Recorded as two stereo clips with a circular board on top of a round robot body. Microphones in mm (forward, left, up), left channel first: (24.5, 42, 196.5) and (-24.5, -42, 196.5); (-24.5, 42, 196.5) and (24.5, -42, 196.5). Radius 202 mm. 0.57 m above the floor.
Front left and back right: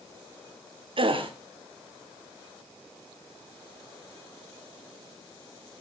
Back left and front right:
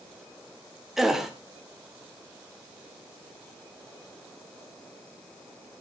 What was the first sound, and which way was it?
A gasp, 145° right.